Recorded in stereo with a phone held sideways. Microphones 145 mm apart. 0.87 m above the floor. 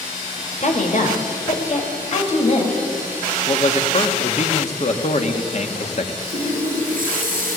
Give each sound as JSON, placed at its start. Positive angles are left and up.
{"t": 0.6, "sound": "a woman speaking", "side_deg": 60, "distance_m": 3.5}
{"t": 3.5, "sound": "a man speaking", "side_deg": 50, "distance_m": 1.8}
{"t": 6.2, "sound": "a running tap", "side_deg": -70, "distance_m": 9.0}